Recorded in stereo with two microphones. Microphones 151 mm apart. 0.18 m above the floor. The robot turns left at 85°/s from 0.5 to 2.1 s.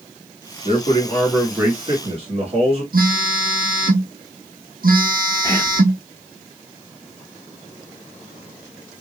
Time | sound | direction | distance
0.7 | a man speaking | 65° left | 2 m
2.9 | a phone buzzing | 75° right (ahead or behind) | 1.1 m
5.4 | whispering | 25° left (ahead or behind) | 1.7 m